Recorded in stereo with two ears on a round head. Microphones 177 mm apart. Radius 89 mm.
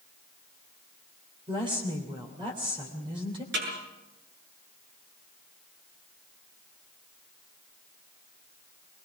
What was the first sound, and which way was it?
A woman speaking, 25° right (ahead or behind).